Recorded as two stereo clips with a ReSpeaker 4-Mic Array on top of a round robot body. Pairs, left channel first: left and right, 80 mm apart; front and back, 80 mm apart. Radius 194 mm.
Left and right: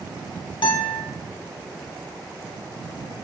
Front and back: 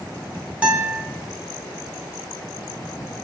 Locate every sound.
0.6 s a guitar: 105° left, 0.9 m